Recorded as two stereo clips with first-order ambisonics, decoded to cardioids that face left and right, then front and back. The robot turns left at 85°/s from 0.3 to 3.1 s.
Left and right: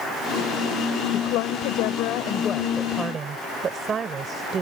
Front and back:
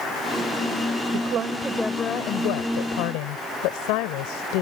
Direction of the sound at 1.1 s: 145° left.